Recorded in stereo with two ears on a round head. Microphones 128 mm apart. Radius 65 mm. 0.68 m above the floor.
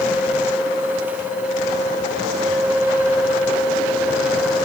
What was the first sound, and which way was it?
Only background noise.